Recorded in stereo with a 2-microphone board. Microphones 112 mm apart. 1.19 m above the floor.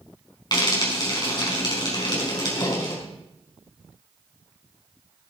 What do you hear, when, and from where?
0.5 s frying: 40° left (ahead or behind), 5.5 m